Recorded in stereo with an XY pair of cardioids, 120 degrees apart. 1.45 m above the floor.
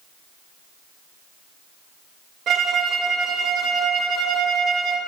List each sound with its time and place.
2.5 s a violin: 60° right, 0.9 m